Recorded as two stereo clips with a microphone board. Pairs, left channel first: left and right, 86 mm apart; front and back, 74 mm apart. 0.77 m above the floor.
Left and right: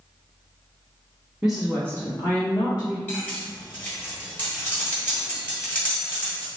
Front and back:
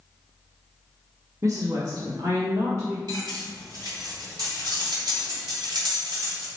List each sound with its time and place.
1.4 s a woman speaking: 165° right, 0.6 m; by 3.0 s 130° left, 1.8 m
3.1 s cutlery clinking: 155° left, 1.8 m